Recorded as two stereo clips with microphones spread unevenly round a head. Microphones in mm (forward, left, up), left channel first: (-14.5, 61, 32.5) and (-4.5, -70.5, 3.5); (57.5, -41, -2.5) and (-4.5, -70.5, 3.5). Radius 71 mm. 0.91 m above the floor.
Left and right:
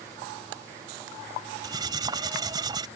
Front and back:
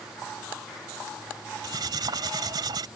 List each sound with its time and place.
1.6 s cutlery clinking: 150° right